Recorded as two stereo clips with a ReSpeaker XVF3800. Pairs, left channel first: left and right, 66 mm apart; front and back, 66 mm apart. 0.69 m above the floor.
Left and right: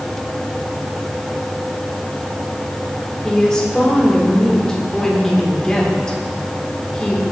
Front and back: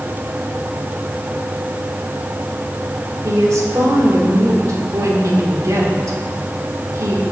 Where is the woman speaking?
165° left, 2 m.